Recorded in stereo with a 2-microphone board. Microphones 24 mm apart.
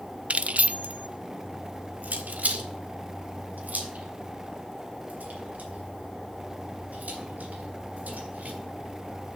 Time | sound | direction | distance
0.3 | keys jangling | 55° right (ahead or behind) | 0.5 m